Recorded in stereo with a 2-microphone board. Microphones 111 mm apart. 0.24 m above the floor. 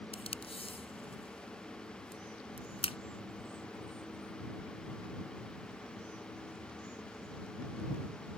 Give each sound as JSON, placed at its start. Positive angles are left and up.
{"t": 0.1, "sound": "tape being pulled", "side_deg": 60}